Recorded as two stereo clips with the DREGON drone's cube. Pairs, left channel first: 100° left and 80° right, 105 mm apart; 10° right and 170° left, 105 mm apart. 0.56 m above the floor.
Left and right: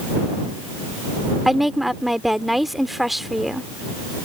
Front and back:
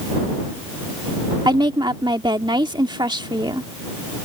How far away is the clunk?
I don't hear a clunk.